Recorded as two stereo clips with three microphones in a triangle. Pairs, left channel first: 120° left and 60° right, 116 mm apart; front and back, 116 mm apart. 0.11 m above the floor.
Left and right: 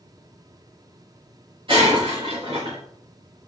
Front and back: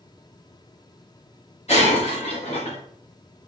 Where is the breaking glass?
20° right, 3.5 m.